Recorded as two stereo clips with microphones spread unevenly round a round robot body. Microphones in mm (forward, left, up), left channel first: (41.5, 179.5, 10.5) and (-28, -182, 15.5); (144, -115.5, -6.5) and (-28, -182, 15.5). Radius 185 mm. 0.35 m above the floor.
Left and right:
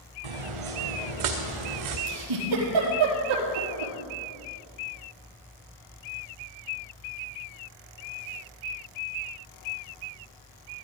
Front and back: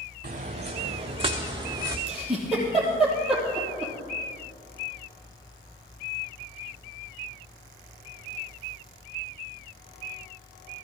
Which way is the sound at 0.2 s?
110° right.